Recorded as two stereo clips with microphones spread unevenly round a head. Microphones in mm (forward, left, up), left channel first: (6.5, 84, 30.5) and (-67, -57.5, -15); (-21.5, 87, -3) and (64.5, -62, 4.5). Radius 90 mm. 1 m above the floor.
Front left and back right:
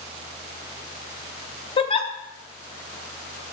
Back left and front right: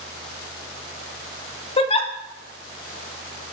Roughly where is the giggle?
Left.